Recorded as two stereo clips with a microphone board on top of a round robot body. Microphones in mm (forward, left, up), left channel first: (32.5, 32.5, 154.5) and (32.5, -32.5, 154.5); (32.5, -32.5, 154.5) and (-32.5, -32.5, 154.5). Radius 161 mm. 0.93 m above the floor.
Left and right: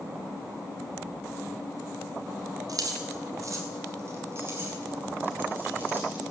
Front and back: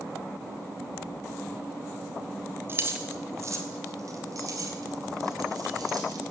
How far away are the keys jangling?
About 1.4 m.